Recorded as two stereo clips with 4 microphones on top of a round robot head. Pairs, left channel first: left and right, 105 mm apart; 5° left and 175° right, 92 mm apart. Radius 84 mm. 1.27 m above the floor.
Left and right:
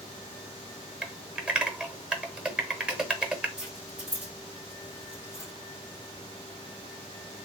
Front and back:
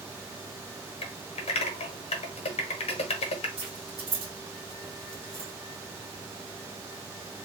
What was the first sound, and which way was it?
Typing on a keyboard, 10° right.